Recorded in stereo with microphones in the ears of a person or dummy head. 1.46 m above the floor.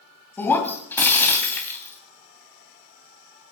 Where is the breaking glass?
10° left (ahead or behind), 2.5 m.